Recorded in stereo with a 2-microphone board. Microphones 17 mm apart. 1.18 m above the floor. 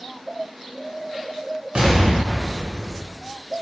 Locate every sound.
1.8 s an explosion: 70° right (ahead or behind), 0.9 m